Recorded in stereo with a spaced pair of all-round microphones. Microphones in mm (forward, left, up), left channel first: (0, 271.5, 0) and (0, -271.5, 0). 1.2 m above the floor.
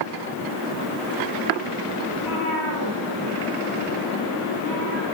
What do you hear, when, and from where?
2.1 s a cat meowing: 45° left (ahead or behind), 7 m; by 5.0 s 65° left (ahead or behind), 7 m